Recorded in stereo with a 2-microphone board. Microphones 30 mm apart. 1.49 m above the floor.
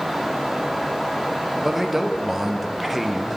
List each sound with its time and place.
1.6 s a man speaking: 5° right (ahead or behind), 0.5 m